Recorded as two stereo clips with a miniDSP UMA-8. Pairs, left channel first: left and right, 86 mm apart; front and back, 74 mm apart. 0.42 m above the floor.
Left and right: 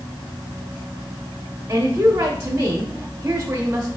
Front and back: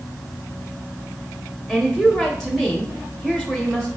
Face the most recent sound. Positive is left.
turn(degrees=-85)